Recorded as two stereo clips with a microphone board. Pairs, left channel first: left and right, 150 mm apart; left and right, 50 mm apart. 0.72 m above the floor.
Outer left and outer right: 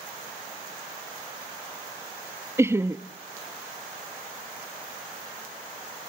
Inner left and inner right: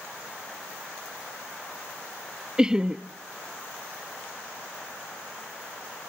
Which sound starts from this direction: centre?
Laughter, at 2.6 s.